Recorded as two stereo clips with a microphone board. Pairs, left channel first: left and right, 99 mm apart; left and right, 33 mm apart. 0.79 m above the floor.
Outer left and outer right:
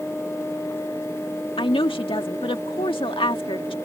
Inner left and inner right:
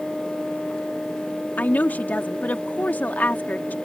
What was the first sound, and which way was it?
A woman speaking, 55° left (ahead or behind).